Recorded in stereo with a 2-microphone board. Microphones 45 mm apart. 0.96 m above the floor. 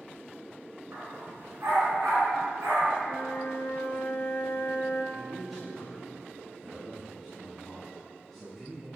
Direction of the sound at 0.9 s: 80° right.